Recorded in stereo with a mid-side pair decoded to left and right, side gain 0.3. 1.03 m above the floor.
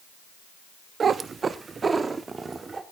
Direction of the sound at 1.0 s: 65° right.